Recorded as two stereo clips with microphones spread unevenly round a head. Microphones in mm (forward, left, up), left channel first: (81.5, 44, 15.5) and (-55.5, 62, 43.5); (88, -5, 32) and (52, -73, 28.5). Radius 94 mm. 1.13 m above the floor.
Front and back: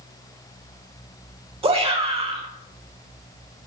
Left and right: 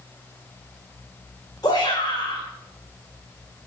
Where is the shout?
125° left, 4 m.